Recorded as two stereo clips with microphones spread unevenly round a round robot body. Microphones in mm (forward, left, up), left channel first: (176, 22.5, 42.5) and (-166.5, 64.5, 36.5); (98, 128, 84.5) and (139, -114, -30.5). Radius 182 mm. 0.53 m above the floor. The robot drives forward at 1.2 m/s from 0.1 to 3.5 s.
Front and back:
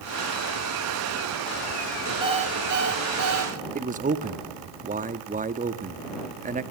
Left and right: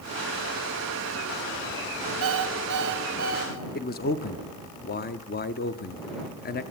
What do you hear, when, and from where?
2.2 s an alarm clock: 110° right, 1.8 m; by 3.5 s 140° right, 2.5 m
3.8 s a man speaking: 170° left, 1.0 m